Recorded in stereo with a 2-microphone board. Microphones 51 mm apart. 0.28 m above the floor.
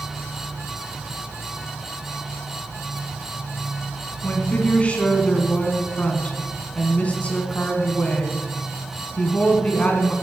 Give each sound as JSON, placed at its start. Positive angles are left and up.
{"t": 4.2, "sound": "a woman speaking", "side_deg": 25, "distance_m": 2.5}